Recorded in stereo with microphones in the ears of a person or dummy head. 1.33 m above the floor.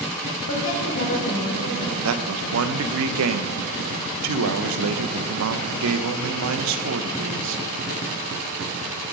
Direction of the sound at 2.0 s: 70° right (ahead or behind).